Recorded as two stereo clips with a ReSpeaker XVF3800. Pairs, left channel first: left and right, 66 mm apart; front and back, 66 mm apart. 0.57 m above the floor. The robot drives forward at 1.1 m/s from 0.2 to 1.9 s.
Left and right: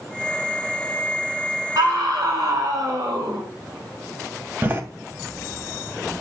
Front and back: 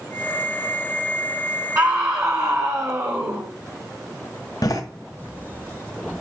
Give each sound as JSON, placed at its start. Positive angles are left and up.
{"t": 1.8, "sound": "a scream", "azimuth_deg": -130, "distance_m": 2.5}
{"t": 4.6, "sound": "a door slam", "azimuth_deg": -25, "distance_m": 2.0}